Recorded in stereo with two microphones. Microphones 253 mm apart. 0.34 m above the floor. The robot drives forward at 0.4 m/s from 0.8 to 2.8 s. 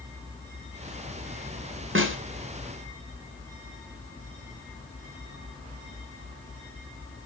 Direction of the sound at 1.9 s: 55° right (ahead or behind).